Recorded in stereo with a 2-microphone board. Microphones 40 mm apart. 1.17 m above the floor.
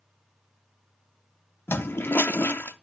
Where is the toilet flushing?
70° left (ahead or behind), 0.6 m.